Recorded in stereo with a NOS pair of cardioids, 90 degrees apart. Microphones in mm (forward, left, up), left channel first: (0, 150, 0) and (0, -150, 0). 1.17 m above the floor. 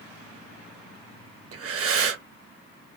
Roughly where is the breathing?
Ahead right.